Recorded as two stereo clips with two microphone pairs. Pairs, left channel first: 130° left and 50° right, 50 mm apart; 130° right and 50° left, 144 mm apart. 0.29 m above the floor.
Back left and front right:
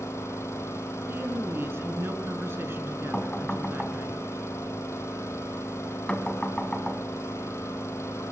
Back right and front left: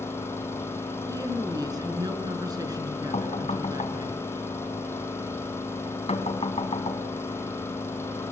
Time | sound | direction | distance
0.0 | an engine running | 155° left | 4.5 m
1.1 | a woman speaking | 10° right | 4 m
3.1 | knocking | 165° right | 2.5 m